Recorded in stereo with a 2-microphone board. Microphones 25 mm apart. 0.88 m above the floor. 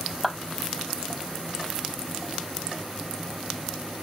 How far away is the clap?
About 4.5 m.